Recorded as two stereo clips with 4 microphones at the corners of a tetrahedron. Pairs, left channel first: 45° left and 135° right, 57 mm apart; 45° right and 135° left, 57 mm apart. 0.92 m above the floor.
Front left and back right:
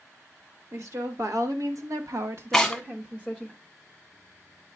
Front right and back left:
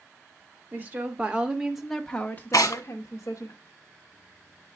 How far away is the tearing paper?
About 1.0 m.